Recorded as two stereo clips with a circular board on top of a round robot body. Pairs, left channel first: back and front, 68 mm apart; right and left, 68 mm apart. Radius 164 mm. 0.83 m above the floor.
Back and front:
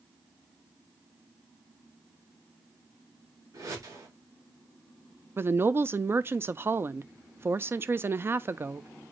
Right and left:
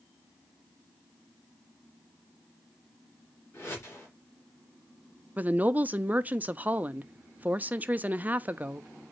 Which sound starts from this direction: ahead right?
A whoosh, at 3.5 s.